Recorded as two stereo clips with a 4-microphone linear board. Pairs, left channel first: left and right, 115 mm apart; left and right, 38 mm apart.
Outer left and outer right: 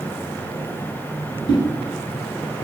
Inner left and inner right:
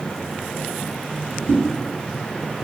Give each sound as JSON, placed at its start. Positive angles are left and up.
{"t": 1.5, "sound": "a whoosh", "side_deg": 45, "distance_m": 1.9}